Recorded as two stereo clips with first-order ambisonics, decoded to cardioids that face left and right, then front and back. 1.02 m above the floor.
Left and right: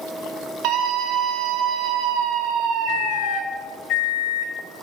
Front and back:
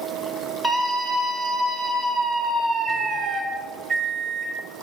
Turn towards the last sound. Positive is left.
turn(degrees=95)